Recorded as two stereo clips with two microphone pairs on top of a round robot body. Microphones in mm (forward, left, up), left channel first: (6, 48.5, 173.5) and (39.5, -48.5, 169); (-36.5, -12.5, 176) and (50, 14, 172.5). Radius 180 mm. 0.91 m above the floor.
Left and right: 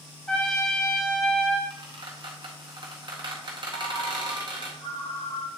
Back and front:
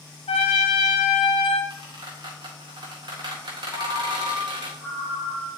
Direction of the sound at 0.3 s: 170° right.